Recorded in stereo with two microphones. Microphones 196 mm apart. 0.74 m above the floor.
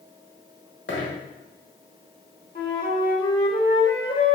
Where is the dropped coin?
75° left (ahead or behind), 1.4 m.